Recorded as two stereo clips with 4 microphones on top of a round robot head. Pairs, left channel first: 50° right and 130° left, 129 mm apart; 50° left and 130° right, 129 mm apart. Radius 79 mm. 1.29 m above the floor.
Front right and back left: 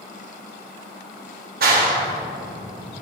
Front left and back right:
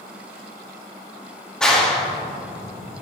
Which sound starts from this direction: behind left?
A clap, at 1.6 s.